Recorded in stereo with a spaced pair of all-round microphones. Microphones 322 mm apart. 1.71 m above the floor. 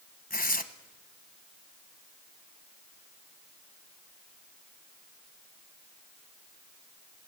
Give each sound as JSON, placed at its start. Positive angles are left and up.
{"t": 0.3, "sound": "tearing paper", "side_deg": 25, "distance_m": 1.0}